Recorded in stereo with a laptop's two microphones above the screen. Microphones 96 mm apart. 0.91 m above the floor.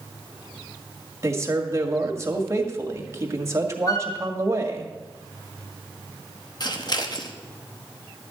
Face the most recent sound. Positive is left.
turn(degrees=45)  # may be behind; listen again after turning